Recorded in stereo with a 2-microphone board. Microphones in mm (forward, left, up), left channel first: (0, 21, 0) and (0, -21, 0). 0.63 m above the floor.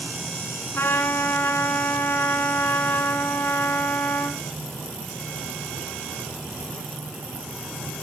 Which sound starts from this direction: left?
A trumpet, at 0.7 s.